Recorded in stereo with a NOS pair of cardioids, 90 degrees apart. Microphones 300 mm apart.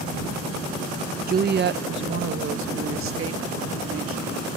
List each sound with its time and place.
1.3 s a woman speaking: 30° right; by 4.5 s 50° right